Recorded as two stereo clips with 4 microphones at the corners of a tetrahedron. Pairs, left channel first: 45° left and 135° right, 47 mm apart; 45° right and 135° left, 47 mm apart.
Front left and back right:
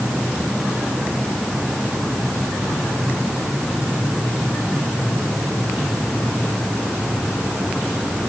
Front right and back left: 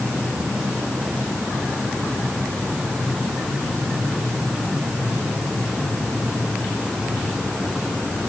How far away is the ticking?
No ticking in this recording.